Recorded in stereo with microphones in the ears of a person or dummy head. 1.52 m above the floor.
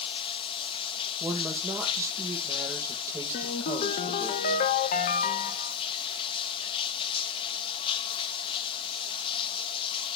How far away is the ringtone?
About 0.9 m.